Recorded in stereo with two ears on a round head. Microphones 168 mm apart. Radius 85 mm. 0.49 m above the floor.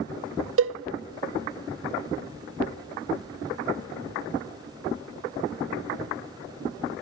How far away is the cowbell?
About 0.8 m.